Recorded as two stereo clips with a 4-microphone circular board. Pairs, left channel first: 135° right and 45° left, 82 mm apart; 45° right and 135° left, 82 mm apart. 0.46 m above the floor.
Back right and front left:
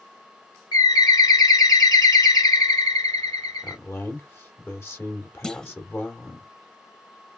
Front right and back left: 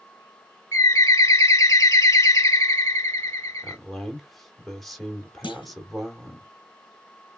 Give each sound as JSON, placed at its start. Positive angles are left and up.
{"t": 0.7, "sound": "a bird", "azimuth_deg": -95, "distance_m": 1.4}
{"t": 3.6, "sound": "a man speaking", "azimuth_deg": -130, "distance_m": 1.5}
{"t": 5.4, "sound": "a clunk", "azimuth_deg": -55, "distance_m": 0.6}